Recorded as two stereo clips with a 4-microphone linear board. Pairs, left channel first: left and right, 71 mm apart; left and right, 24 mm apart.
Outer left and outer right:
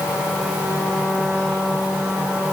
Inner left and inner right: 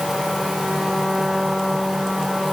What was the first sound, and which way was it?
Only background noise.